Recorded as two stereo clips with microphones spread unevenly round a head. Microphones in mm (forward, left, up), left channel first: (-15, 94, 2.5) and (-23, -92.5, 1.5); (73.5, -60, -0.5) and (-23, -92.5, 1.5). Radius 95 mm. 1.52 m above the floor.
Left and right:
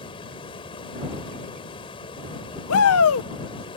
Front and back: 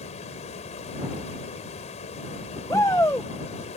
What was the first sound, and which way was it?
Running water, 25° left.